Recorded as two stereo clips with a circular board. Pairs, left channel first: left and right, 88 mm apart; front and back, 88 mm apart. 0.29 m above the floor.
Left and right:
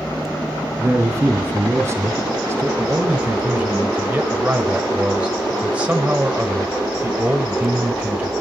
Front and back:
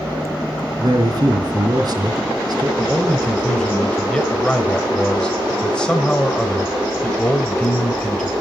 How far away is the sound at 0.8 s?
About 2.5 m.